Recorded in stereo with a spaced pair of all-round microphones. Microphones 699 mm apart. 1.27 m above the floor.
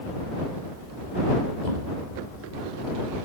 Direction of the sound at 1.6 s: 85° right.